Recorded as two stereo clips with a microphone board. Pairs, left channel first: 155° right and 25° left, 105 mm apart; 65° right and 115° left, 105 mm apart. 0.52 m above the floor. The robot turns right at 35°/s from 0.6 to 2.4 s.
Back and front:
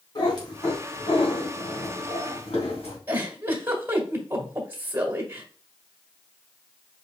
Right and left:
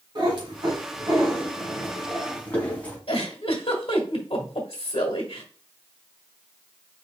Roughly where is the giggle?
Ahead right.